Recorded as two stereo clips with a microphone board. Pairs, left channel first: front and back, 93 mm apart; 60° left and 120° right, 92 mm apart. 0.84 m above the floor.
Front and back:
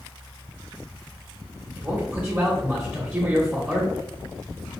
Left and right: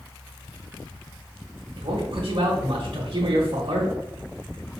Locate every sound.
1.8 s a man speaking: 105° right, 1.1 m